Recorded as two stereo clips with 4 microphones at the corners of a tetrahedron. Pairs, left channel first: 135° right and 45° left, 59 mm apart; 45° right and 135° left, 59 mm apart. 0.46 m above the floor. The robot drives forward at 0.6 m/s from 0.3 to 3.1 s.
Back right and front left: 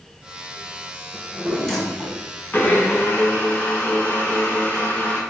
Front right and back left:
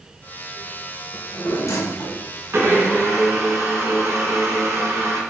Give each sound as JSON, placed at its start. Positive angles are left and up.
{"t": 1.1, "sound": "a drawer", "azimuth_deg": -35, "distance_m": 1.4}
{"t": 2.5, "sound": "a blender", "azimuth_deg": 175, "distance_m": 1.0}